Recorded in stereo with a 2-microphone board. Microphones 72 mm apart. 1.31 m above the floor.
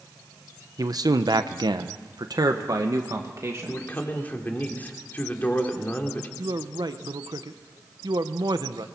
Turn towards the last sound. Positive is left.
turn(degrees=-65)  # may be behind; listen again after turning